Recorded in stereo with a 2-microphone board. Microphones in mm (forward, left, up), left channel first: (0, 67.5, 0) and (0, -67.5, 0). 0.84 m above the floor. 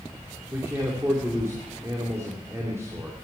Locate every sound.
0.5 s a man speaking: 20° right (ahead or behind), 2.5 m